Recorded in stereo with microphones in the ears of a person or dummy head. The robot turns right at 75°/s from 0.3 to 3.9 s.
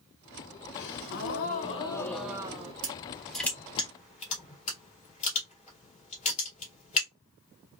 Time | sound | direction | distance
0.7 | a gasp | 70° left | 0.8 m
2.8 | crushing | 35° right (ahead or behind) | 2.5 m